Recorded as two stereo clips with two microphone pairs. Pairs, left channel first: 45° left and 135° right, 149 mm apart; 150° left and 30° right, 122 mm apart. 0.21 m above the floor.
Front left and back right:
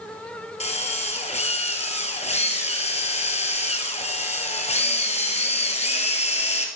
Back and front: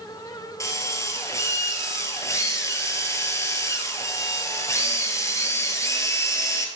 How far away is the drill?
About 1.9 m.